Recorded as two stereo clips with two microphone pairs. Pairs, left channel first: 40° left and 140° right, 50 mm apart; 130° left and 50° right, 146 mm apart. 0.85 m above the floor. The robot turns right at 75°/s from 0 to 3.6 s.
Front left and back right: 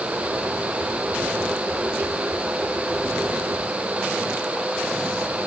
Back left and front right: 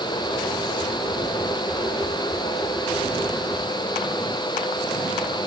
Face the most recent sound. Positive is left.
No sound to turn to.